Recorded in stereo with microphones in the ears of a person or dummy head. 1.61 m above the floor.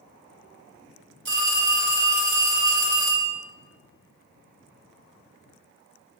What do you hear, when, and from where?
1.2 s a phone ringing: 75° right (ahead or behind), 3 m